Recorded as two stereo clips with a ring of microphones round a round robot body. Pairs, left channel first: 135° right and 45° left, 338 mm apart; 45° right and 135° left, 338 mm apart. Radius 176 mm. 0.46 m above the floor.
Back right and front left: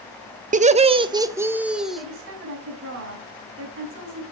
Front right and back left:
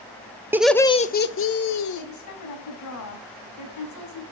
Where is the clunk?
I don't hear a clunk.